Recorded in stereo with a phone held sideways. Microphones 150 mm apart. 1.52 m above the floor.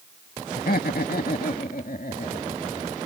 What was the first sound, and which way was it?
Laughter, 85° left.